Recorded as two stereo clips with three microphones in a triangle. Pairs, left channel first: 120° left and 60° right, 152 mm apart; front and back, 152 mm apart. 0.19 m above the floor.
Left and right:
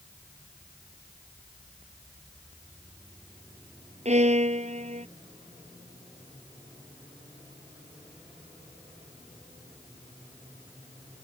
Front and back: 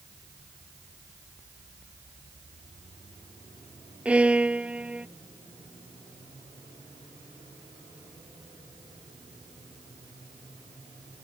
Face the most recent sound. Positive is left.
turn(degrees=-100)